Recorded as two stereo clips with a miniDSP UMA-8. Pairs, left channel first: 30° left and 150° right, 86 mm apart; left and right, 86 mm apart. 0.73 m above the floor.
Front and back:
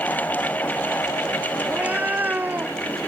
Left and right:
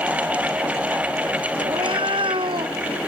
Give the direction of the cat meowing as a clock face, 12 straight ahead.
3 o'clock.